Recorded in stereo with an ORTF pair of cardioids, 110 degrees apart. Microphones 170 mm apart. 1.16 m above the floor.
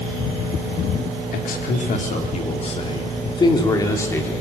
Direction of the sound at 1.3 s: 55° left.